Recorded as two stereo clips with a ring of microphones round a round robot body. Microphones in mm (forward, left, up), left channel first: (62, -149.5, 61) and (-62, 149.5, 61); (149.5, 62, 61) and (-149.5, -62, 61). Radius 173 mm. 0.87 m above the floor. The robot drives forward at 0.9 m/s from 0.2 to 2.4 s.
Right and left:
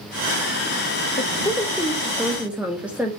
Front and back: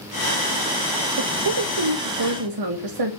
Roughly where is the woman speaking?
Behind right.